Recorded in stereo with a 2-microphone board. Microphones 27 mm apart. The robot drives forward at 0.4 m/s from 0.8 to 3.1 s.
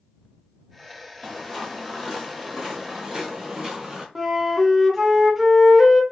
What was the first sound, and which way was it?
Footsteps, 5° left (ahead or behind).